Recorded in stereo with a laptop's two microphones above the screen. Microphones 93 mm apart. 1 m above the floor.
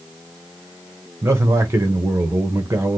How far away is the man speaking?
About 1.1 m.